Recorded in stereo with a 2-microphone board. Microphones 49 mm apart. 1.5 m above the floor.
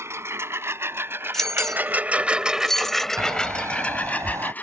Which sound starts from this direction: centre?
Keys jangling, at 1.3 s.